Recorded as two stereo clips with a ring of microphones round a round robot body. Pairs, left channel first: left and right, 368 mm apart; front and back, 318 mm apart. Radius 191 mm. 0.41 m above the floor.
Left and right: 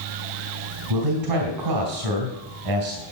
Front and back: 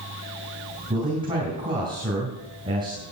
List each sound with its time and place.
0.9 s a man speaking: 105° right, 3 m